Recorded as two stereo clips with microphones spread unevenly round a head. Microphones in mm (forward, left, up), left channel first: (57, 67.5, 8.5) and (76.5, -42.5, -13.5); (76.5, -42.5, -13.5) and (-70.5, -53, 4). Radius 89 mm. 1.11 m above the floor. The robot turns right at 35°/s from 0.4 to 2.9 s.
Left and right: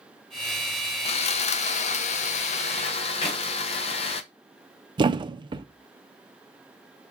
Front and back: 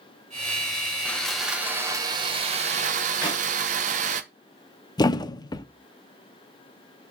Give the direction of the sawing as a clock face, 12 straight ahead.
9 o'clock.